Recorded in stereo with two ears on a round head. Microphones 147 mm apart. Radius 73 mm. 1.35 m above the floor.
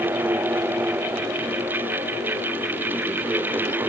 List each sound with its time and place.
Only background noise.